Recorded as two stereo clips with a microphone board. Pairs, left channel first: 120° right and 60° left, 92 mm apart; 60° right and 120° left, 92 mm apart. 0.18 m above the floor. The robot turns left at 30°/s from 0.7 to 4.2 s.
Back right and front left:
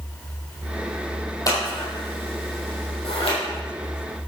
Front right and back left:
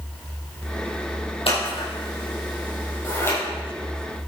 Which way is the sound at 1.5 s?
70° right.